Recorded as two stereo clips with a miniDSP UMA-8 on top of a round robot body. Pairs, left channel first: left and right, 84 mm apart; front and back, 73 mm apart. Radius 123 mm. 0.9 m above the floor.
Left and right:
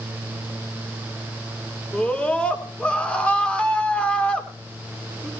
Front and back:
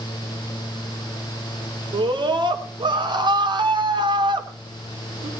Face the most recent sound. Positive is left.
turn(degrees=165)